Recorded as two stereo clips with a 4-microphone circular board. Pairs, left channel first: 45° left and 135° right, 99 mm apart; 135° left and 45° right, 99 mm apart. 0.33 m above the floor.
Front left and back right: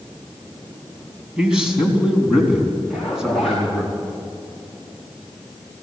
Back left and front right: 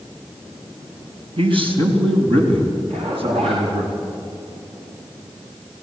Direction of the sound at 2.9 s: 45° right.